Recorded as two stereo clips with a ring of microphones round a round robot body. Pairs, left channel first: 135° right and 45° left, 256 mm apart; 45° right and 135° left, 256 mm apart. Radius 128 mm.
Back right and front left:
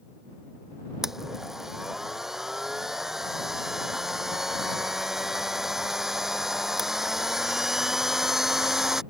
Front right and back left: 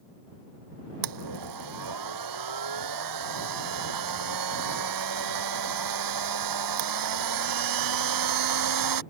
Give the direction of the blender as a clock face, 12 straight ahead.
8 o'clock.